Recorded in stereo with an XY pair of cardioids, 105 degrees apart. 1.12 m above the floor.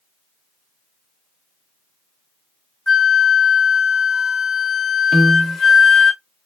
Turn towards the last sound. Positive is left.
turn(degrees=-15)